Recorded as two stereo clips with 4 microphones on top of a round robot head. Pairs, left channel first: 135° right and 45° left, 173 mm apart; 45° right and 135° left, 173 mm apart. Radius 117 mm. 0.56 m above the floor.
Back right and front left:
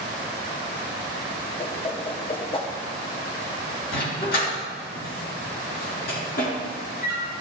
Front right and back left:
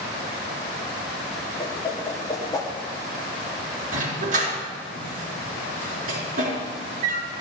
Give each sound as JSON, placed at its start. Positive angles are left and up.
{"t": 1.6, "sound": "a whoosh", "azimuth_deg": -100, "distance_m": 1.3}
{"t": 3.9, "sound": "a dog barking", "azimuth_deg": -175, "distance_m": 3.5}